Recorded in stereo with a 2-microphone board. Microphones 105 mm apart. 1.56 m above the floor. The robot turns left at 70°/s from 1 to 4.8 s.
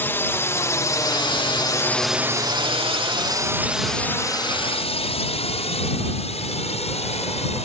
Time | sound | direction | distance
0.0 | a drone | 20° left (ahead or behind) | ?